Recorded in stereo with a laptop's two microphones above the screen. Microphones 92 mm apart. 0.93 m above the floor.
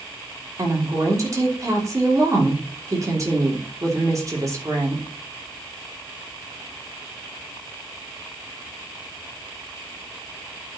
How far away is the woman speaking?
About 3 m.